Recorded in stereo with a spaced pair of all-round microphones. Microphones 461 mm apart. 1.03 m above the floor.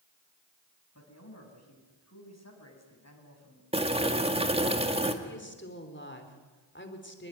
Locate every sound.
0.9 s a man speaking: 35° left (ahead or behind), 6.5 m
3.7 s boiling: 15° right (ahead or behind), 2.0 m
5.2 s a woman speaking: 25° left (ahead or behind), 3.5 m